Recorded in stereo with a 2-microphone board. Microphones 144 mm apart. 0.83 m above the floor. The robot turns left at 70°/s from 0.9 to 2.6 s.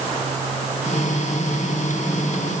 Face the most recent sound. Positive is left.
No sound to turn to.